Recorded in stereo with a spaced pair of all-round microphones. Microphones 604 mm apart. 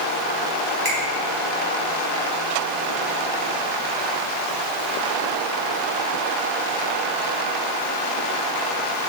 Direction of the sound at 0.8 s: 55° right (ahead or behind).